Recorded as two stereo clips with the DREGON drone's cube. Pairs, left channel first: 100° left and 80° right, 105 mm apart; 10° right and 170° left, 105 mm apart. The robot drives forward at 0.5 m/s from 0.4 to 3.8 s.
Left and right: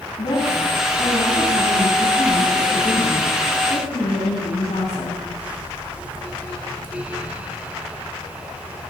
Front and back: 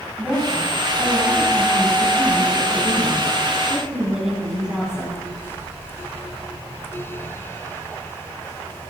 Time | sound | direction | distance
0.2 | a woman speaking | 70° left | 9 m